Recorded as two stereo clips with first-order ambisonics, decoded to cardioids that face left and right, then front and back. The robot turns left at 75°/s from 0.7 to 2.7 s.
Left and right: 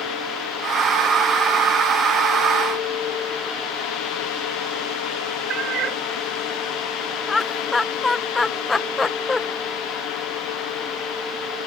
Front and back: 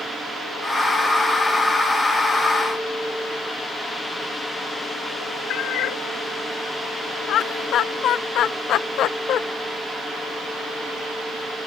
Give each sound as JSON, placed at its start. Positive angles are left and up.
{"t": 5.5, "sound": "a cat meowing", "azimuth_deg": -40}
{"t": 7.3, "sound": "laughter", "azimuth_deg": 20}